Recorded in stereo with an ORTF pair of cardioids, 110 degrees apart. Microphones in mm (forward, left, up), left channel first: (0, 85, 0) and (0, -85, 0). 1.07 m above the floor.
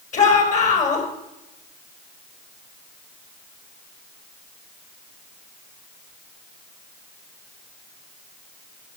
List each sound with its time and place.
0.1 s a shout: 45° left, 4.5 m